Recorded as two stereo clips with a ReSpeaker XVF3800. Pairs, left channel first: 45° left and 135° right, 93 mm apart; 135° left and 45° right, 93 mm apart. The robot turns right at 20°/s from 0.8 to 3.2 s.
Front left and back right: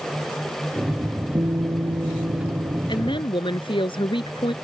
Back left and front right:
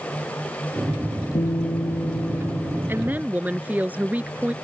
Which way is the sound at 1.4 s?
170° left.